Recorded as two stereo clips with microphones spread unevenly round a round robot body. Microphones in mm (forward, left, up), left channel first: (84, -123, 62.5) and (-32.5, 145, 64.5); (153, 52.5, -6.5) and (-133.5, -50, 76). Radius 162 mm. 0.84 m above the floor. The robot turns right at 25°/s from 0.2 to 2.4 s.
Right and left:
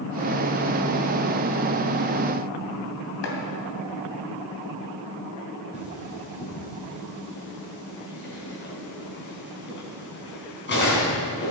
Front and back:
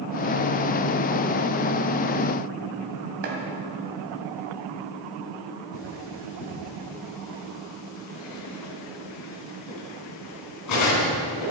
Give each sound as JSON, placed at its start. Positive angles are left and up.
{"t": 3.2, "sound": "chopping", "azimuth_deg": -115, "distance_m": 2.5}
{"t": 5.7, "sound": "cutlery clinking", "azimuth_deg": -15, "distance_m": 5.0}